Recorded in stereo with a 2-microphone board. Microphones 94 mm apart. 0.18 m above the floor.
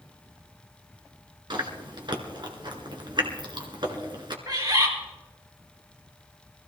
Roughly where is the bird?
Right.